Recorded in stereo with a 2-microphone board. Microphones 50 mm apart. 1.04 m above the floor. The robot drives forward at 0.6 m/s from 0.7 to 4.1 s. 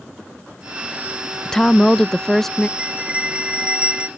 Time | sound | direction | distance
1.4 | a woman speaking | 15° left (ahead or behind) | ?
2.8 | a bell | 25° right (ahead or behind) | ?